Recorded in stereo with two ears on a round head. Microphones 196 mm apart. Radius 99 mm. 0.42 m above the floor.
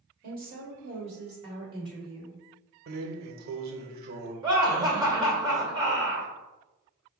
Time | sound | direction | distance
0.2 | a woman speaking | 45° right (ahead or behind) | 1.7 m
2.9 | a drawer | 45° right (ahead or behind) | 0.6 m
4.4 | laughter | 20° right (ahead or behind) | 1.7 m